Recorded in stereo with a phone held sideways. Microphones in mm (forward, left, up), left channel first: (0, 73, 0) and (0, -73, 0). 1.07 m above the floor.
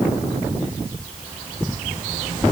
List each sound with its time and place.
Only background noise.